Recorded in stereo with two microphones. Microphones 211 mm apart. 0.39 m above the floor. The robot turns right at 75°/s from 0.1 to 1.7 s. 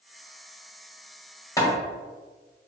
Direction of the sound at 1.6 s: 15° left (ahead or behind).